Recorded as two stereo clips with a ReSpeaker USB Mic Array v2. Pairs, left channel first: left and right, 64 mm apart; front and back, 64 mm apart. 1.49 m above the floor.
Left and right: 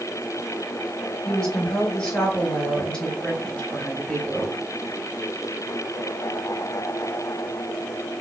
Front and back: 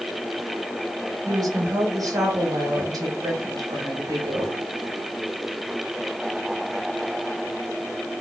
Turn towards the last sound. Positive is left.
turn(degrees=170)